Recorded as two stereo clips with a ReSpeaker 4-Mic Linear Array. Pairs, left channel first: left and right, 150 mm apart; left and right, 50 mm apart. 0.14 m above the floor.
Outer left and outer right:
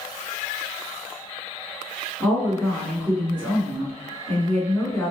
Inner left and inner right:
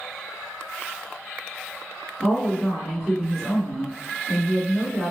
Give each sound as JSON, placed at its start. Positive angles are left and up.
{"t": 2.2, "sound": "a woman speaking", "side_deg": 10, "distance_m": 1.4}